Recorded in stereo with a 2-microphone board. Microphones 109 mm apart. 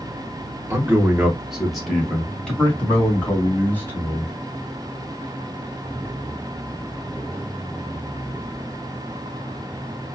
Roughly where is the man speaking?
Right.